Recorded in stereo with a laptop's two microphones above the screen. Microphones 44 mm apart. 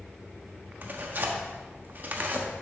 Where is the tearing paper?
45° right (ahead or behind), 1.1 m.